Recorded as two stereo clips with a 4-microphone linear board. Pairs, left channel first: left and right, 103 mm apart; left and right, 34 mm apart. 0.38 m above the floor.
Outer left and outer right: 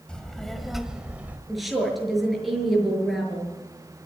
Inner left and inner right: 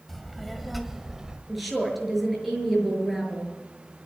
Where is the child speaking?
10° left (ahead or behind), 1.8 m; by 1.4 s 15° right (ahead or behind), 1.4 m.